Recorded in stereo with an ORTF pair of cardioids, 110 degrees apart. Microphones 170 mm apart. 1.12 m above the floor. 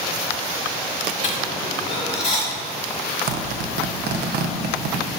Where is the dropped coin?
40° left, 2 m.